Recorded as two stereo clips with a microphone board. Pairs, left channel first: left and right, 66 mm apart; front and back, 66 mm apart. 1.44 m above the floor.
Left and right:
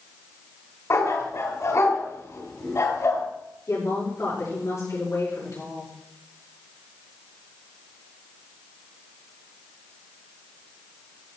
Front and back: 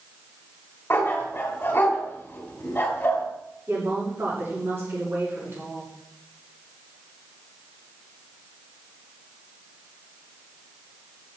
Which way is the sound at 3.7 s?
130° left.